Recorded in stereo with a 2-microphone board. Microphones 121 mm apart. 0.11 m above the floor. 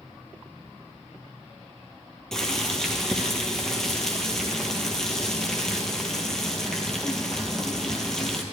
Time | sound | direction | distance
2.3 | boiling | 5° left (ahead or behind) | 1.3 m